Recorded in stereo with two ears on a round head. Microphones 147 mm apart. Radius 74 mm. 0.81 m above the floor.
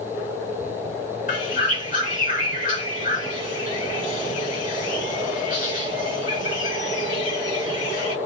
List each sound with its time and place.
1.3 s a bird: 55° left (ahead or behind), 1.9 m